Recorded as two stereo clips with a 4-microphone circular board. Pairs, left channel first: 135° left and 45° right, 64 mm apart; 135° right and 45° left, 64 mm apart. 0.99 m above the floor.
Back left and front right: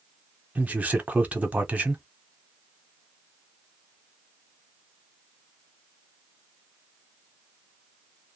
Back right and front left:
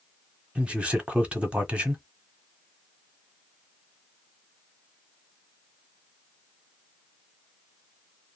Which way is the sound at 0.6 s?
5° right.